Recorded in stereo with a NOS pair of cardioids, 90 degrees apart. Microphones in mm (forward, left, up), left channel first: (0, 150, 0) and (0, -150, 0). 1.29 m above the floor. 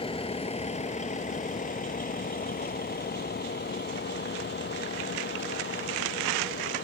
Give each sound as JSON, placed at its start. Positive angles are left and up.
{"t": 0.0, "sound": "a vehicle", "azimuth_deg": 15}